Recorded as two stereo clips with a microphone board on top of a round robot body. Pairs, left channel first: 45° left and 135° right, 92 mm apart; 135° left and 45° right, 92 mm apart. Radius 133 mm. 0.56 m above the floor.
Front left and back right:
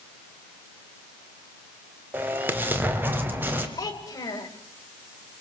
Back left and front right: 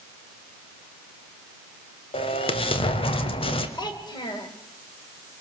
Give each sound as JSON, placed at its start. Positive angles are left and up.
{"t": 2.1, "sound": "an explosion", "azimuth_deg": 155, "distance_m": 1.8}
{"t": 3.8, "sound": "a child speaking", "azimuth_deg": 95, "distance_m": 2.5}